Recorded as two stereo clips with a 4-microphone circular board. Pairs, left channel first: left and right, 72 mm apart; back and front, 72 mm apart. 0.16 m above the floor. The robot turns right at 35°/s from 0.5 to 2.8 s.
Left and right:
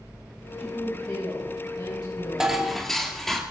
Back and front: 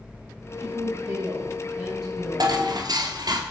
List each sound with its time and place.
0.6 s a woman speaking: 30° left, 8 m; by 2.6 s 100° left, 8 m
2.4 s dishes clattering: 10° right, 2 m; by 3.4 s 5° left, 2 m